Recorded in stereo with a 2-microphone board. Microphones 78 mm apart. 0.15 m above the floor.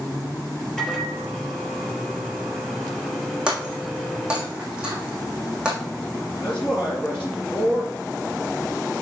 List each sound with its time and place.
0.8 s a microwave: 5° left (ahead or behind), 3.5 m
3.5 s breaking glass: 10° right (ahead or behind), 3 m
6.4 s a man speaking: 5° left (ahead or behind), 2.5 m